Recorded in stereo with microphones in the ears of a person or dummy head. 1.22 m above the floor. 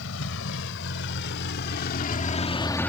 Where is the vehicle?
70° left (ahead or behind); by 2.9 s 10° left (ahead or behind).